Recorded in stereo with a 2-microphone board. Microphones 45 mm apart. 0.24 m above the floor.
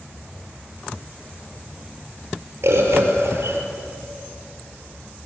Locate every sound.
2.6 s a bird: 75° right (ahead or behind), 6 m